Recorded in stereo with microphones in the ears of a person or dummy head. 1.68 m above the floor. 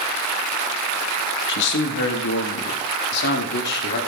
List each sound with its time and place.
1.5 s a man speaking: 60° left (ahead or behind), 2 m